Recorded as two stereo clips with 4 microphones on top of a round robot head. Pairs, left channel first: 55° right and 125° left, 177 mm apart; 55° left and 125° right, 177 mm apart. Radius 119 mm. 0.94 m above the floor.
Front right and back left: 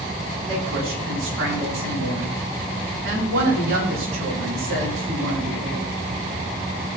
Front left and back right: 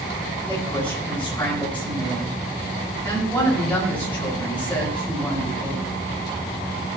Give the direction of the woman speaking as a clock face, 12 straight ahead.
7 o'clock.